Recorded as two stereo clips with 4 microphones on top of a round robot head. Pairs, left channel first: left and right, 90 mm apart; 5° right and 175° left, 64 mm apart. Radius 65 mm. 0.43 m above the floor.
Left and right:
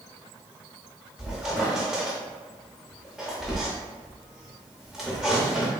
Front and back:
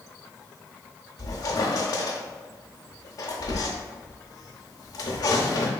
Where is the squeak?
5° right, 0.6 m.